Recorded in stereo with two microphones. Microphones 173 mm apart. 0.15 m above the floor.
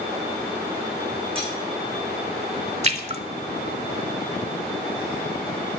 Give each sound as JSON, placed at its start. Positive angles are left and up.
{"t": 1.4, "sound": "cutlery clinking", "side_deg": -35, "distance_m": 6.0}
{"t": 2.8, "sound": "a splash", "side_deg": -40, "distance_m": 0.8}